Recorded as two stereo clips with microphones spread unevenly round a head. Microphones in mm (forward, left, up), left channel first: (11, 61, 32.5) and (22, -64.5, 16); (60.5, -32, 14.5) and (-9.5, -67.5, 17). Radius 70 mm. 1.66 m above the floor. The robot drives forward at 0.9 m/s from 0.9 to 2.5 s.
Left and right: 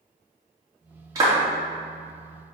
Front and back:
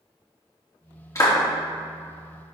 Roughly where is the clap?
Ahead.